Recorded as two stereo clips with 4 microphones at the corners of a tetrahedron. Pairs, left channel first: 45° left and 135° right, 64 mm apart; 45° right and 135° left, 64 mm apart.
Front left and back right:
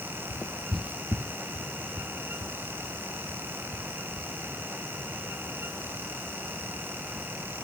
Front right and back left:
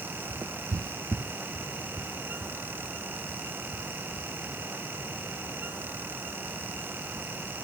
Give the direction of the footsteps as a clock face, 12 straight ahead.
9 o'clock.